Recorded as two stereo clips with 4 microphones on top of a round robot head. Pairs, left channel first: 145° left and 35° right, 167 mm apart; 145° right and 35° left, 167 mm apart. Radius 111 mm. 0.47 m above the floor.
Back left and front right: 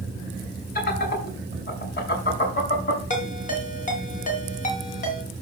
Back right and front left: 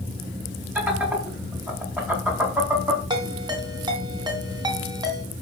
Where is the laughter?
115° left, 5.5 m.